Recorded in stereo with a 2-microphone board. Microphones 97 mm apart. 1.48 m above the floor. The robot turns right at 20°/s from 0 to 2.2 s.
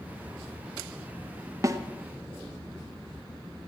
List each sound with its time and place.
1.6 s a snare drum: 30° right (ahead or behind), 0.9 m